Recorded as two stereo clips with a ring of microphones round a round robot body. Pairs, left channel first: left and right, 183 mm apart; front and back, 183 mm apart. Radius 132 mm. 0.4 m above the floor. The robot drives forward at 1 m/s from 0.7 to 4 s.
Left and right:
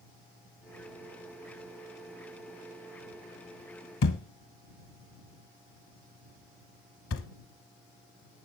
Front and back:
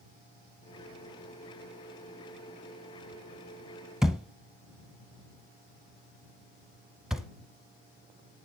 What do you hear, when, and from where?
4.0 s a thud: 95° left, 0.7 m